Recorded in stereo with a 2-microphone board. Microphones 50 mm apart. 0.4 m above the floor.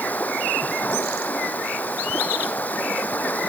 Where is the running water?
35° left (ahead or behind).